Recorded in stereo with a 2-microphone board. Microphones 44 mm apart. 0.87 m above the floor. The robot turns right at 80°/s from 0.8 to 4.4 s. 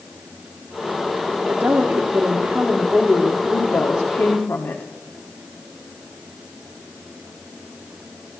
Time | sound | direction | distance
1.5 | a woman speaking | 110° right | 1.4 m